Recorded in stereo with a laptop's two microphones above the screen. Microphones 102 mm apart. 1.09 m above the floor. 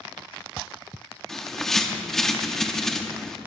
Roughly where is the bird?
Centre.